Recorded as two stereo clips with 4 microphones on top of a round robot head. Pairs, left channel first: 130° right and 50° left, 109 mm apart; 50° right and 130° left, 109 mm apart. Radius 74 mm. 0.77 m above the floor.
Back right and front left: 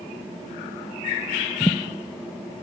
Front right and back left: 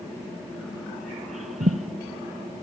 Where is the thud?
155° left, 1.2 m.